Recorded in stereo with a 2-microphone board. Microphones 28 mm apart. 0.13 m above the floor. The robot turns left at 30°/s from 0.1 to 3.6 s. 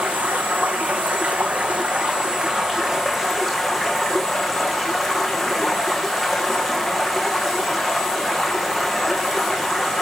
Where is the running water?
75° right, 2.5 m; by 10.0 s straight behind, 2.5 m.